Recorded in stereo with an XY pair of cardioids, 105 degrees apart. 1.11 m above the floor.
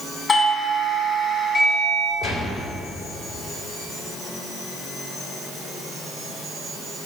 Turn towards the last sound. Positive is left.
turn(degrees=70)